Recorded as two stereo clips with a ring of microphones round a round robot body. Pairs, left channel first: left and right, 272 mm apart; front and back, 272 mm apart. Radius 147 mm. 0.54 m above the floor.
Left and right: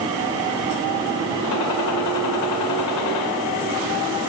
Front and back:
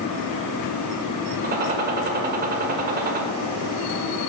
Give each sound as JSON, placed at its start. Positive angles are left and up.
{"t": 1.4, "sound": "a gunshot", "azimuth_deg": 120, "distance_m": 1.4}